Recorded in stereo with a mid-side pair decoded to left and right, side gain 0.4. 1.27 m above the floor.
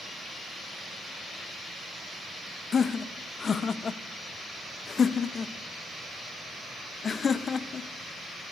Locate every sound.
2.7 s laughter: 45° left, 0.6 m